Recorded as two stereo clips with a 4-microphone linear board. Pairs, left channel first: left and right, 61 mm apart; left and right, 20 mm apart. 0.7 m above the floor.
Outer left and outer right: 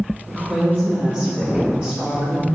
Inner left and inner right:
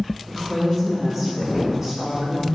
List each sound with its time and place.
0.3 s a woman speaking: 25° right (ahead or behind), 1.8 m